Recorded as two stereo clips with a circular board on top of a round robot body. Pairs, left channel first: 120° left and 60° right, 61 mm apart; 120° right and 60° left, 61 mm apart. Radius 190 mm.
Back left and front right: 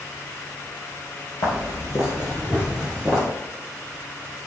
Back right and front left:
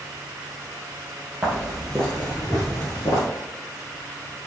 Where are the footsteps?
140° left, 1.5 m; by 3.2 s 155° right, 1.7 m.